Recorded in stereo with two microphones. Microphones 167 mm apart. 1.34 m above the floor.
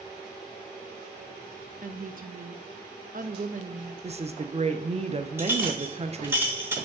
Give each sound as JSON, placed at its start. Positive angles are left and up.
{"t": 1.8, "sound": "a woman speaking", "side_deg": -55, "distance_m": 0.6}
{"t": 4.0, "sound": "a woman speaking", "side_deg": -40, "distance_m": 0.6}
{"t": 5.4, "sound": "a clink", "side_deg": -15, "distance_m": 0.9}